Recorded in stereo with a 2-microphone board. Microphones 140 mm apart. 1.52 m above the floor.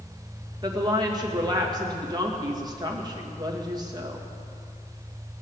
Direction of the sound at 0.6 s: 30° right (ahead or behind).